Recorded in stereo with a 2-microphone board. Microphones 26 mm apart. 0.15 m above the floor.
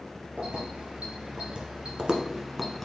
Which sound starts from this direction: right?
Keys jangling, at 0.4 s.